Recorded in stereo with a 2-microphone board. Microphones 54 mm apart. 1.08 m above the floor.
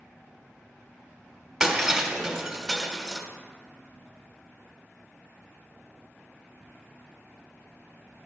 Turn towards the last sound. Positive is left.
turn(degrees=-10)  # may be behind; listen again after turning